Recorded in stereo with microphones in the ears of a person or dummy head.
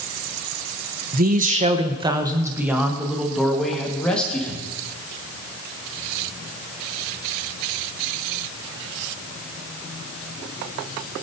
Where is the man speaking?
45° right (ahead or behind), 0.9 m; by 4.6 s 10° left (ahead or behind), 2 m.